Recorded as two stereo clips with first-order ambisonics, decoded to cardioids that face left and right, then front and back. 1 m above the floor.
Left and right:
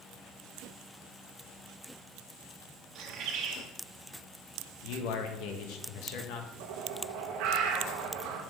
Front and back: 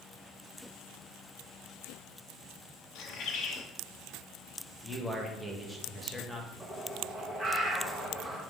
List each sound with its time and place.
3.0 s a bird: 45° right, 1.0 m
4.8 s a man speaking: 95° left, 1.1 m
6.6 s a bird: 100° right, 1.0 m